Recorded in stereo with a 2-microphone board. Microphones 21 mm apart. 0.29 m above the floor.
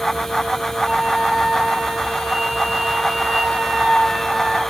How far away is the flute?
About 6.5 m.